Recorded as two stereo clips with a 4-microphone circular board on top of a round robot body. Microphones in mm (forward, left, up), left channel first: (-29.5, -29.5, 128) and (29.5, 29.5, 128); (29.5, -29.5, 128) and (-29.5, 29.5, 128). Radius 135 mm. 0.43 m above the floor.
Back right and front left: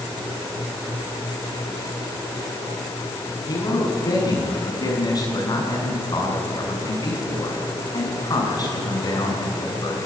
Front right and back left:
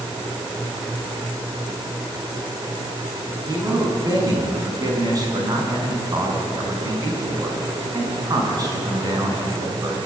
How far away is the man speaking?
About 6.5 m.